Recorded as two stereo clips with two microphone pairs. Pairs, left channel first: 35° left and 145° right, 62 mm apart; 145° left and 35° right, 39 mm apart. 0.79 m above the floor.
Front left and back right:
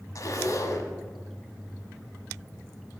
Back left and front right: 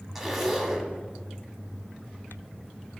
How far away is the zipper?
About 1.1 m.